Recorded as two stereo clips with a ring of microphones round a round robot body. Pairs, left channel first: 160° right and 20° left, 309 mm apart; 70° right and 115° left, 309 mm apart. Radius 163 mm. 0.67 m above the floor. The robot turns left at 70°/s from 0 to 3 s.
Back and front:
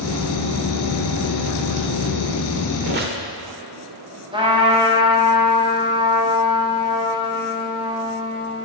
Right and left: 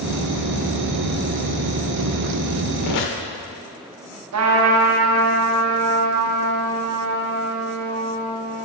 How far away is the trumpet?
About 1.7 m.